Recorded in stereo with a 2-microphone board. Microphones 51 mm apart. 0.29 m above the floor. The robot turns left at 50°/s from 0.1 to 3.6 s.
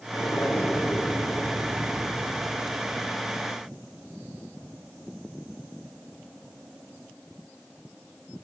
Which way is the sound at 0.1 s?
80° left.